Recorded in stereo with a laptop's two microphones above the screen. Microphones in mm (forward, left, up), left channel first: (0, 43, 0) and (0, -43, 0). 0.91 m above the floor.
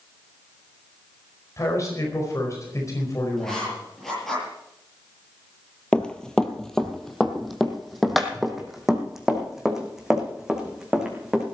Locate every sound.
1.6 s a man speaking: 40° left (ahead or behind), 4.5 m
3.4 s writing: centre (ahead or behind), 9 m
5.9 s running footsteps: 10° left (ahead or behind), 1.2 m; by 11.4 s 5° right (ahead or behind), 4 m